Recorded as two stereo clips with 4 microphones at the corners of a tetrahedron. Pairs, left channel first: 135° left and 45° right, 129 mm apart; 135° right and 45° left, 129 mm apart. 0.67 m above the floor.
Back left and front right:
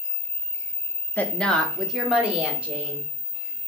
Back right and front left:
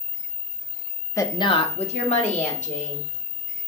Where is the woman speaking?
175° right, 0.5 m; by 3.1 s 125° right, 1.5 m.